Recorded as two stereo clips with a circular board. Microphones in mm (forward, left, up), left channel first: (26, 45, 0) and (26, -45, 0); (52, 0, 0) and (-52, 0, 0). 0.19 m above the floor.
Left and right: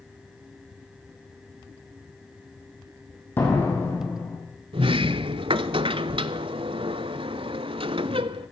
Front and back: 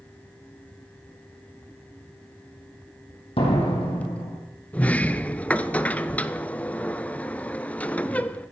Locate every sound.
3.4 s a door slam: 25° left, 4.5 m
4.7 s a sliding door: 75° right, 0.5 m